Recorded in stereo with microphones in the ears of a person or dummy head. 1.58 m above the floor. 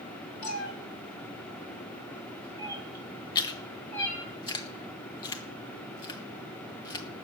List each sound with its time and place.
0.4 s a cat meowing: 55° left (ahead or behind), 1.7 m; by 4.3 s 10° left (ahead or behind), 5.5 m
3.4 s chewing: 25° left (ahead or behind), 0.9 m